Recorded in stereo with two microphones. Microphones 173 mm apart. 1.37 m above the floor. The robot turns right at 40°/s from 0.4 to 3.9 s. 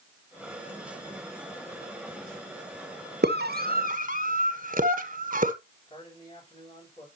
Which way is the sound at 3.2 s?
75° right (ahead or behind).